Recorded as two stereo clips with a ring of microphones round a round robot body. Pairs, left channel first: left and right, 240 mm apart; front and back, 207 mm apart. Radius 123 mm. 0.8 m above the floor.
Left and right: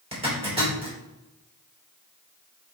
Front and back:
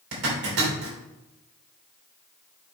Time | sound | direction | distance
0.1 | a zipper | 155° right | 3 m